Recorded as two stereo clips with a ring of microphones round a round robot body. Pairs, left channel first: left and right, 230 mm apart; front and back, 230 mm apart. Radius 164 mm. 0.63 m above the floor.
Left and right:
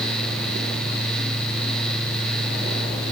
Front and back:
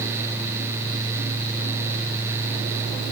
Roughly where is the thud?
I don't hear a thud.